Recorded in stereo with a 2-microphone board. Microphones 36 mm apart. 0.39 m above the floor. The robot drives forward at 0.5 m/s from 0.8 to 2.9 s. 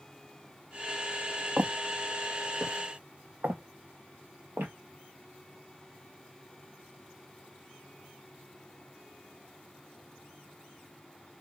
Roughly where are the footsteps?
Right.